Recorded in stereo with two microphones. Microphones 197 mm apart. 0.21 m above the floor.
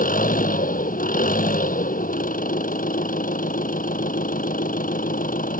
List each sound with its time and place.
0.0 s an engine running: 45° left (ahead or behind)